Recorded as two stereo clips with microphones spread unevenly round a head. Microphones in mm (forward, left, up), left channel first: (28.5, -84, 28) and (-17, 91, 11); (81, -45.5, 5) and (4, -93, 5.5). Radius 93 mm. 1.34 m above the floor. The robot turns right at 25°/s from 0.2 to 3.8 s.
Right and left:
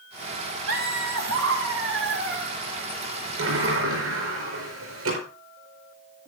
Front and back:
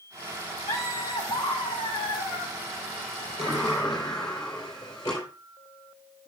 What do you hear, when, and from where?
0.7 s laughter: 85° left, 3 m; by 2.5 s 130° left, 3 m
3.4 s a sliding door: 95° left, 4 m; by 5.2 s 105° left, 4 m